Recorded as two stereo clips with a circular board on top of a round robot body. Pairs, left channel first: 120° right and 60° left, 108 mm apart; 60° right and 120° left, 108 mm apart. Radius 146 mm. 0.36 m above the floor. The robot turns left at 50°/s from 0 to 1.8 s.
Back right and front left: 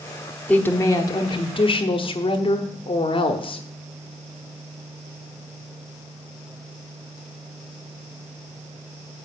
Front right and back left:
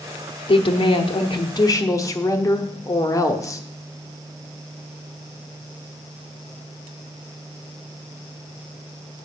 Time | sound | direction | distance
0.5 | a woman speaking | 45° right | 1.2 m